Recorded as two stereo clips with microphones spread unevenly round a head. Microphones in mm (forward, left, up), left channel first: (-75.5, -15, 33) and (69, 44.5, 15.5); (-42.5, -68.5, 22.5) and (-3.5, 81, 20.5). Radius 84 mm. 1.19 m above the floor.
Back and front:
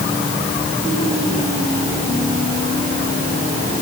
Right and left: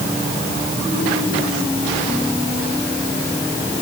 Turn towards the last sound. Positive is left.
No sound to turn to.